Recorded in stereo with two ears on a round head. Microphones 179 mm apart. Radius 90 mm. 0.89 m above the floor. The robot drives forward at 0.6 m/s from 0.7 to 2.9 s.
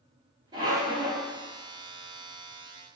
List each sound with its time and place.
0.5 s a squeak: 25° right (ahead or behind), 0.9 m